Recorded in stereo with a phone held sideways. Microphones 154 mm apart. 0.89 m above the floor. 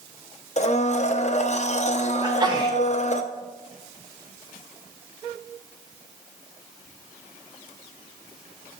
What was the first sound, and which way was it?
A blender, 50° left (ahead or behind).